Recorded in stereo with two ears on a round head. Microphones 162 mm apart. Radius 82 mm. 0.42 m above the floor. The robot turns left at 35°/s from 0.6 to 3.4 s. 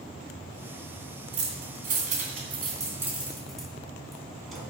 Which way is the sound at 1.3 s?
70° right (ahead or behind).